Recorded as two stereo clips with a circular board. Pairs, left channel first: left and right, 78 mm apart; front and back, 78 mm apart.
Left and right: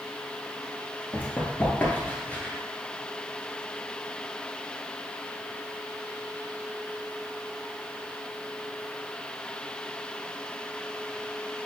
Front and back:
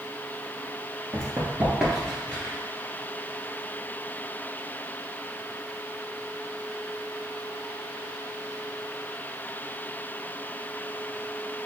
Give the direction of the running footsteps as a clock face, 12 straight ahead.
7 o'clock.